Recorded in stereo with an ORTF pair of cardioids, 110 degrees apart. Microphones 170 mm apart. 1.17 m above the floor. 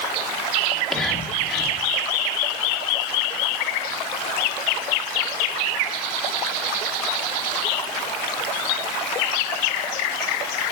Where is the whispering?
Straight ahead, 1.9 m.